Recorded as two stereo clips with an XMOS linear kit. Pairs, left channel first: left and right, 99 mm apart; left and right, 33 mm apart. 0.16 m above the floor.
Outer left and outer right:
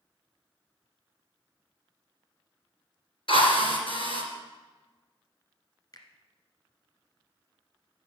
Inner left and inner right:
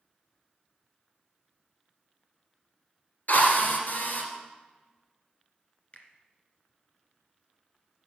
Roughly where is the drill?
Left.